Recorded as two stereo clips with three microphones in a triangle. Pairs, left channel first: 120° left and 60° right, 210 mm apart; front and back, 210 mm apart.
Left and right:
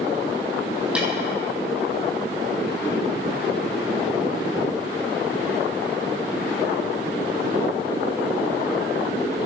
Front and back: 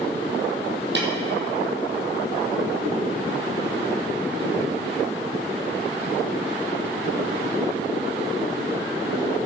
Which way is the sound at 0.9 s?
145° right.